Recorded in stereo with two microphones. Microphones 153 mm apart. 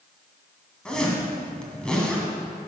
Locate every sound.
0.8 s a zipper: 5° left (ahead or behind), 1.9 m